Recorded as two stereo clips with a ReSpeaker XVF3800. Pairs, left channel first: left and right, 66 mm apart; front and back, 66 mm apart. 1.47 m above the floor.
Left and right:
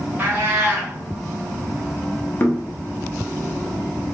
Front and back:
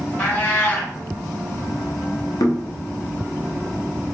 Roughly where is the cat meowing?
Ahead right.